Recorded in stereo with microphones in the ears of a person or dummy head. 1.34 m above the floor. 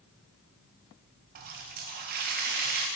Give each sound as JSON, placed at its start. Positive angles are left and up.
{"t": 1.4, "sound": "a running tap", "side_deg": -45, "distance_m": 0.6}